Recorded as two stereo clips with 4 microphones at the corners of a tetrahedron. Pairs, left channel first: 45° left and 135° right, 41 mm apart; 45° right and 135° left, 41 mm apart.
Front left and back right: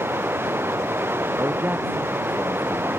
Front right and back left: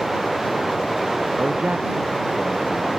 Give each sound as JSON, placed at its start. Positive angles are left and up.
{"t": 0.0, "sound": "running water", "azimuth_deg": -145}
{"t": 1.4, "sound": "a man speaking", "azimuth_deg": -170}